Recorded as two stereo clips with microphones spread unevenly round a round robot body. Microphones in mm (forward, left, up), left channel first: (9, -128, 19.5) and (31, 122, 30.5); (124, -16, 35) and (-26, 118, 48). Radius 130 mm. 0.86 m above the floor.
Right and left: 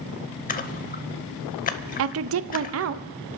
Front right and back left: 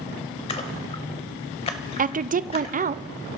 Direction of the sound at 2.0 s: 95° left.